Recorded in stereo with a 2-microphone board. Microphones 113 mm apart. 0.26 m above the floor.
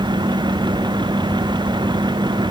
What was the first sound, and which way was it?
Only background noise.